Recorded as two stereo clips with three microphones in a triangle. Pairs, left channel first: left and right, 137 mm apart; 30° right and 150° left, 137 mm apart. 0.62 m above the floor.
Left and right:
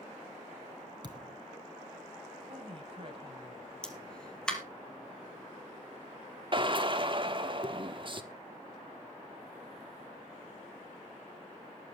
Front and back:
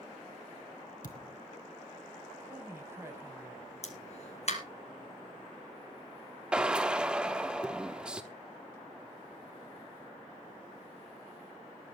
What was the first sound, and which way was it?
A thud, 35° right.